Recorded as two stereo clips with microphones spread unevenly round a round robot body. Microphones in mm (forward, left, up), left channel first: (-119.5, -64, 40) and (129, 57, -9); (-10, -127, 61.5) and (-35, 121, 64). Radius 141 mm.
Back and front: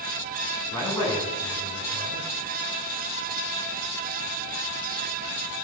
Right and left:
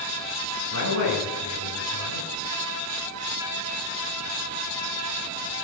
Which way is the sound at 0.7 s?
130° left.